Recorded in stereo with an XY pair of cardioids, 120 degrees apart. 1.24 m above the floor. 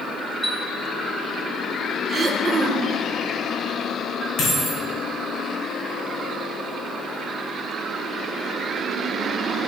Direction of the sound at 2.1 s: 35° right.